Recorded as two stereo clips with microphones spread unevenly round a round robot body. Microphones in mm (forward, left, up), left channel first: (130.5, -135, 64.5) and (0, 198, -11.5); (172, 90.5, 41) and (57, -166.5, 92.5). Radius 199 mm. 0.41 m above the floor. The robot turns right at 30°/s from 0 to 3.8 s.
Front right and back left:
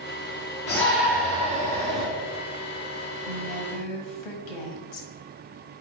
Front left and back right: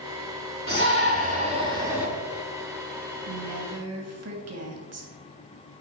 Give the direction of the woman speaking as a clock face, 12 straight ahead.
3 o'clock.